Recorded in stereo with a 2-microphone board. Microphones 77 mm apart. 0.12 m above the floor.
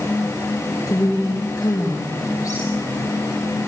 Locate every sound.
0.9 s a woman speaking: 50° left (ahead or behind), 5 m